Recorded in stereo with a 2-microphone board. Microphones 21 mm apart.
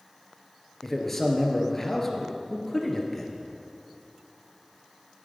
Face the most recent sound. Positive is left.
turn(degrees=15)  # may be behind; listen again after turning